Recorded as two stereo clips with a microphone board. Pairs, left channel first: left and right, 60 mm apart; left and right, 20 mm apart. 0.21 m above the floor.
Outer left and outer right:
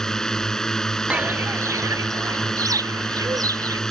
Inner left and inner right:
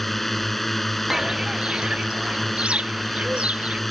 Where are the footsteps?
15° right (ahead or behind); by 3.8 s 70° right (ahead or behind).